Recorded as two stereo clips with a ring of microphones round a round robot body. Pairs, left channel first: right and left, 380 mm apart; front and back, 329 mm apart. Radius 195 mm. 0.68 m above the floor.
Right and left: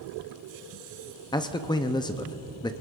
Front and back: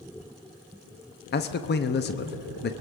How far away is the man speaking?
About 0.6 m.